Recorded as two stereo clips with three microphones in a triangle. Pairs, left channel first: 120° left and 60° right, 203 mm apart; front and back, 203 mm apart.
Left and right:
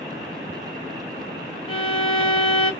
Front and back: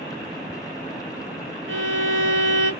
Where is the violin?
175° right, 0.7 m.